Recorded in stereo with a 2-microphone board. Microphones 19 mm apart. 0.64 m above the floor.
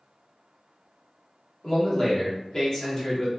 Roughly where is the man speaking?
Left.